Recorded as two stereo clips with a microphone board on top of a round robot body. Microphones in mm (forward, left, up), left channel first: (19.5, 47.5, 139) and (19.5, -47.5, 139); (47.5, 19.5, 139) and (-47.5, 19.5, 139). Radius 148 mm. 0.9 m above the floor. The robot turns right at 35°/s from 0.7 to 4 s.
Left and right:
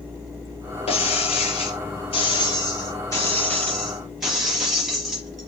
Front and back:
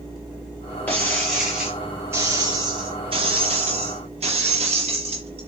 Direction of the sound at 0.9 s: 70° left.